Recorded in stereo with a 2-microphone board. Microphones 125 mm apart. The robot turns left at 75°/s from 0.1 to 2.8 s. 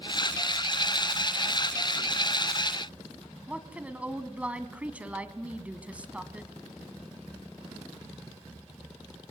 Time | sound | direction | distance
3.5 | a woman speaking | 10° right (ahead or behind) | 1.8 m